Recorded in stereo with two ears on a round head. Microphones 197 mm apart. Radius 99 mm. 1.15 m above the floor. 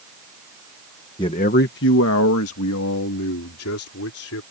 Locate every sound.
1.2 s a man speaking: 20° left (ahead or behind); by 4.4 s 75° left (ahead or behind)